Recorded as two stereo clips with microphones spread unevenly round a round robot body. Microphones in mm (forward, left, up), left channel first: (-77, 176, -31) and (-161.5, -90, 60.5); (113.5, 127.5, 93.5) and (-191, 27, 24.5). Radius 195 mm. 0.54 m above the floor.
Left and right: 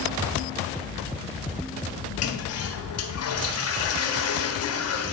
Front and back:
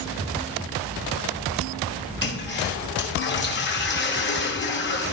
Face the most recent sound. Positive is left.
turn(degrees=80)